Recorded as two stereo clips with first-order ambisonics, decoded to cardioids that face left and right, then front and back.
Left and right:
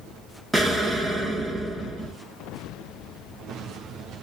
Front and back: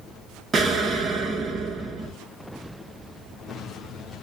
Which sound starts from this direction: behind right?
An explosion, at 0.5 s.